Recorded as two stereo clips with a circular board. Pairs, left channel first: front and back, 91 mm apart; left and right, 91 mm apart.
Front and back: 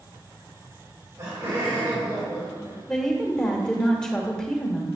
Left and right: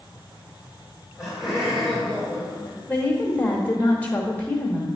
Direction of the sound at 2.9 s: 65° left.